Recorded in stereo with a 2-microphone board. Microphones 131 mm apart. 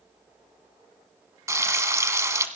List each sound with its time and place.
1.5 s frying: 25° right (ahead or behind), 1.3 m